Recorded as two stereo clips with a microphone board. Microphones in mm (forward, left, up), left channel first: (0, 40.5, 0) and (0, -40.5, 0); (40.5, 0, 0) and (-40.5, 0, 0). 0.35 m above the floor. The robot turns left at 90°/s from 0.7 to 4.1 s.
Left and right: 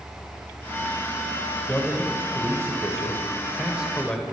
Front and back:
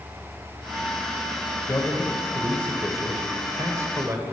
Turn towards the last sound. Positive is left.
turn(degrees=165)